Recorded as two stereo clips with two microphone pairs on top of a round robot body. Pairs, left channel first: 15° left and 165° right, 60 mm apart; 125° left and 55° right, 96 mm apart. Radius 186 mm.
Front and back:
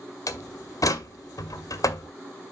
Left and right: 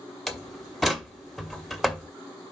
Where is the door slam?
30° left, 1.3 m.